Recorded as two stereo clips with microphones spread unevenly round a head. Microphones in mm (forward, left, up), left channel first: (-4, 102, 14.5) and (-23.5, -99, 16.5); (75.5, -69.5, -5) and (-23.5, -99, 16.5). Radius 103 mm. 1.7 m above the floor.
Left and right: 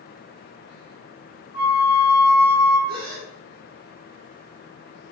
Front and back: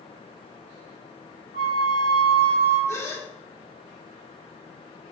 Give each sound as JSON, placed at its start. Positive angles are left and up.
{"t": 1.5, "sound": "a flute", "azimuth_deg": 40, "distance_m": 3.5}
{"t": 2.9, "sound": "a gasp", "azimuth_deg": -50, "distance_m": 2.0}